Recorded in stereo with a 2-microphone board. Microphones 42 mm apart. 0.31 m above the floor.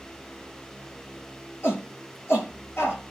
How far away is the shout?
About 4.5 m.